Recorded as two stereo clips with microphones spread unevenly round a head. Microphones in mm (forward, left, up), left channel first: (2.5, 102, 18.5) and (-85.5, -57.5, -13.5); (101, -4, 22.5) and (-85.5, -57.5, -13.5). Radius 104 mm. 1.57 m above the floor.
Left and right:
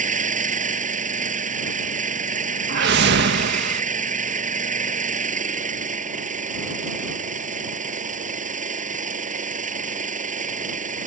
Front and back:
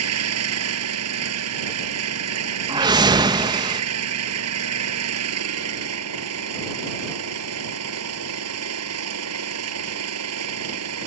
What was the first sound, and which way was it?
An engine running, 170° right.